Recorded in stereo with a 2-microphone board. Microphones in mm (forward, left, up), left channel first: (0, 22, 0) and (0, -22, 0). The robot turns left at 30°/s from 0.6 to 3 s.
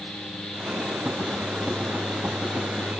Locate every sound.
Only background noise.